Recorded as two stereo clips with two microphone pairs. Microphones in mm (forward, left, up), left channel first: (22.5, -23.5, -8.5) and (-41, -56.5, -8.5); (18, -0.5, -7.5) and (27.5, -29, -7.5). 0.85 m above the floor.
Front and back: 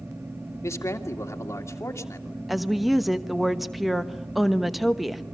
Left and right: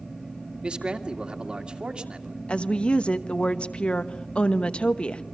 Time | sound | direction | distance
0.6 | a man speaking | 20° right | 2.5 m
2.5 | a woman speaking | 120° left | 1.0 m